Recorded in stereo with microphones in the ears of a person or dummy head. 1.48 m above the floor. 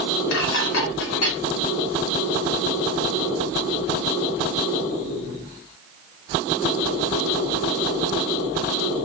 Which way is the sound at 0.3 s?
80° left.